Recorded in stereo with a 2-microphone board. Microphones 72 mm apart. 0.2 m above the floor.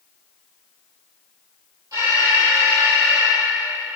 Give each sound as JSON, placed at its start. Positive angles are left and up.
{"t": 1.9, "sound": "an alarm", "side_deg": -50, "distance_m": 9.5}